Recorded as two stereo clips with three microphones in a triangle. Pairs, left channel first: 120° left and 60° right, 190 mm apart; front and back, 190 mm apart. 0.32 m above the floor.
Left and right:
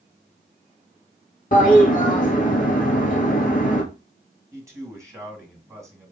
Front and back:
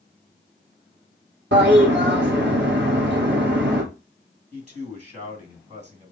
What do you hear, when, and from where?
1.5 s a toilet flushing: 165° left, 1.7 m
4.5 s a man speaking: 135° right, 2 m